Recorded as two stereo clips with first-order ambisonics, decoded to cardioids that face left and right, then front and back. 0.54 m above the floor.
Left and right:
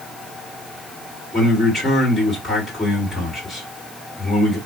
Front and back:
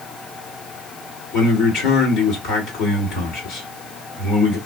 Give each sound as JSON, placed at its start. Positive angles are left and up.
{"t": 1.3, "sound": "a man speaking", "azimuth_deg": 15, "distance_m": 2.0}